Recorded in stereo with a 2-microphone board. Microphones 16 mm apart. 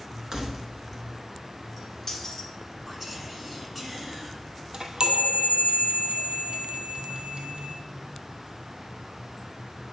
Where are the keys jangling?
35° right (ahead or behind), 1.2 m; by 2.5 s 30° left (ahead or behind), 1.3 m.